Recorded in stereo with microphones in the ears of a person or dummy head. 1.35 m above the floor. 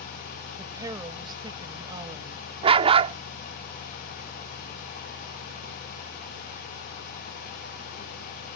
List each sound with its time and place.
0.6 s a woman speaking: 20° right (ahead or behind); by 2.4 s 25° right (ahead or behind)
2.6 s a dog barking: 25° right (ahead or behind)